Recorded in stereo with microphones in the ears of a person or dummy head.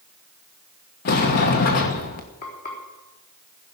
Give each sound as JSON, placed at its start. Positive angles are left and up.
{"t": 1.1, "sound": "a sliding door", "side_deg": 50, "distance_m": 1.3}
{"t": 2.4, "sound": "frying", "side_deg": 50, "distance_m": 4.0}